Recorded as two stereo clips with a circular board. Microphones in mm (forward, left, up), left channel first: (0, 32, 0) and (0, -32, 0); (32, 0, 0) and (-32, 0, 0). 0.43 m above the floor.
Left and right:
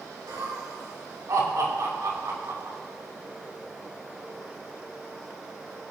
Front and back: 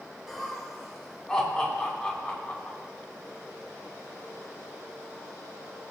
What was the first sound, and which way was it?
Laughter, 90° right.